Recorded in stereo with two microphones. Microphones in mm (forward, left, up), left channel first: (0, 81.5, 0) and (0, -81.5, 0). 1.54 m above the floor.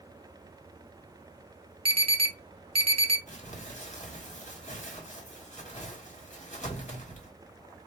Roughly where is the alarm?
Right.